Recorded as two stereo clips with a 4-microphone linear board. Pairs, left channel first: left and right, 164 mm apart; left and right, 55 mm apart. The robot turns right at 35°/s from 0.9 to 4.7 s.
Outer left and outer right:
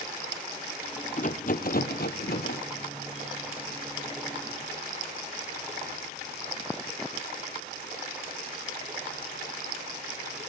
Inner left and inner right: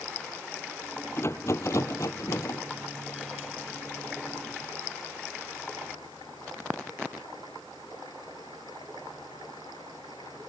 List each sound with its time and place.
1.2 s a rattle: 50° left, 1.2 m; by 2.6 s 100° left, 1.2 m